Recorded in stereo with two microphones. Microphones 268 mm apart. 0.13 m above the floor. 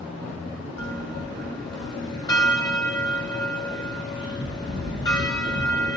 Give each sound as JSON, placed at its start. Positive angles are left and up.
{"t": 0.8, "sound": "a bell", "side_deg": 15, "distance_m": 2.0}